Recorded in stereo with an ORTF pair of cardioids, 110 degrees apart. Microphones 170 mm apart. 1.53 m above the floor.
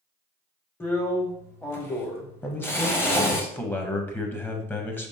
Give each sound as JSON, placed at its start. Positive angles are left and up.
{"t": 0.8, "sound": "a drill", "azimuth_deg": 15, "distance_m": 0.8}
{"t": 2.4, "sound": "a man speaking", "azimuth_deg": 15, "distance_m": 0.8}